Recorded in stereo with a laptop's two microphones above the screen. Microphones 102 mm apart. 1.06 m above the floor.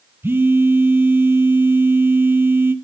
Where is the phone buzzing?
25° right (ahead or behind), 0.6 m.